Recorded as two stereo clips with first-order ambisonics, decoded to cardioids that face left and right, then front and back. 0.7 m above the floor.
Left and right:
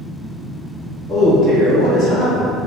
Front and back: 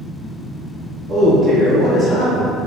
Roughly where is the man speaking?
Behind right.